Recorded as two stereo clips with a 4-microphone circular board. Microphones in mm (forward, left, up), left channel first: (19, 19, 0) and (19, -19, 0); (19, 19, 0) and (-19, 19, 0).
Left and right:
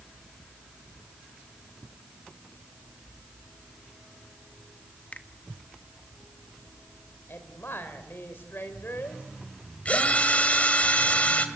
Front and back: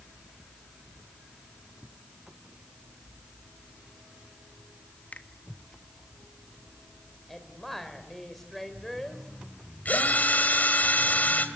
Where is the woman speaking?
85° left, 4 m.